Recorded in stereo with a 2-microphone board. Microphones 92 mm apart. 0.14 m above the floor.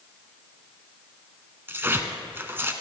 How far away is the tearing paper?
About 1.1 m.